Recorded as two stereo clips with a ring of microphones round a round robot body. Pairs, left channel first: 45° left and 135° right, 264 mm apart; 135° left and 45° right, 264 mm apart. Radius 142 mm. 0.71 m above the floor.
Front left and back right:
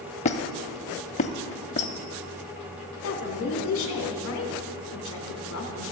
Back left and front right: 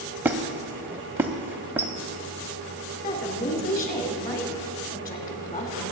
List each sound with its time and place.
0.2 s a squeak: 25° left, 0.5 m
3.0 s a woman speaking: 75° left, 2.5 m